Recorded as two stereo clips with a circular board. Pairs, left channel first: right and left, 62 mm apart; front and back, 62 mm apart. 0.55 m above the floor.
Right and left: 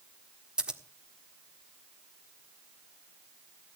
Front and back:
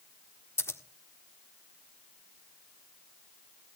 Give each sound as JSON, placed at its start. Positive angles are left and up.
{"t": 0.6, "sound": "scissors", "azimuth_deg": 20, "distance_m": 1.4}